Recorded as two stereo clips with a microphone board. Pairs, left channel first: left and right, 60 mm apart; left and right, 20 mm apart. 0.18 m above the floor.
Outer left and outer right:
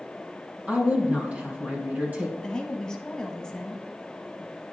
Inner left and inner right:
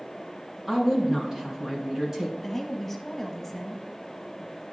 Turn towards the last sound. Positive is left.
turn(degrees=10)  # may be behind; listen again after turning